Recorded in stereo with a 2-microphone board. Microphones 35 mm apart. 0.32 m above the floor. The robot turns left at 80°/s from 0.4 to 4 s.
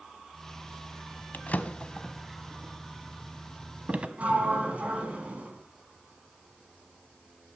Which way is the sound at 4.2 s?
45° right (ahead or behind).